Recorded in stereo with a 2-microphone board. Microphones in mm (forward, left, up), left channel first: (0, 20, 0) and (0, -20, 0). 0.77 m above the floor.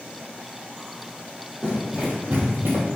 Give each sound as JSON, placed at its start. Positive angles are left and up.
{"t": 1.6, "sound": "running footsteps", "side_deg": -20, "distance_m": 1.5}